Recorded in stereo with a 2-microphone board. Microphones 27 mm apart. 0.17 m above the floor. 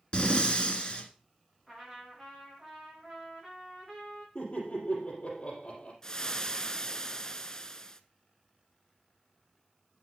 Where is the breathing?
40° left (ahead or behind), 1.3 m.